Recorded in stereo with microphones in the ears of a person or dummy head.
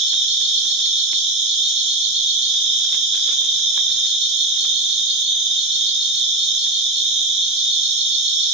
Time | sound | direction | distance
0.0 | an insect | 30° right (ahead or behind) | 1.9 m